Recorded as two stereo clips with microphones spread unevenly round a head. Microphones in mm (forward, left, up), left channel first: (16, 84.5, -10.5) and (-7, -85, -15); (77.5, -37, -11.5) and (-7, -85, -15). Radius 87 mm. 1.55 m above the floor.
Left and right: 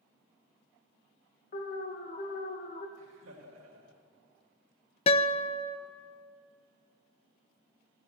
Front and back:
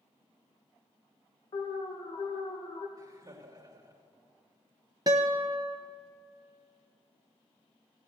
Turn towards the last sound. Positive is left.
turn(degrees=140)